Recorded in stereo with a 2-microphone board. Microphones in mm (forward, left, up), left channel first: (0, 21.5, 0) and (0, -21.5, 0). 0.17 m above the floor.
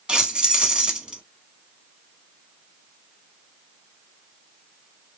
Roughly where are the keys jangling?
Right.